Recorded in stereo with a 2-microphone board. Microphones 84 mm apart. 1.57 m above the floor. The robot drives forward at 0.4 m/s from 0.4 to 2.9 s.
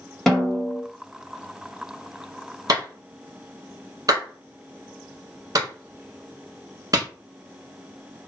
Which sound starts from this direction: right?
A clap, at 2.7 s.